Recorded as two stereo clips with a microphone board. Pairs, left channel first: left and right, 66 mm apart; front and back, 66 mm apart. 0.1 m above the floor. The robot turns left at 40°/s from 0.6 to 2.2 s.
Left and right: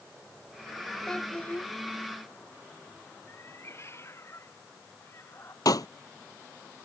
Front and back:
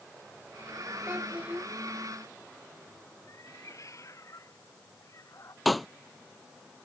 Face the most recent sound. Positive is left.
turn(degrees=90)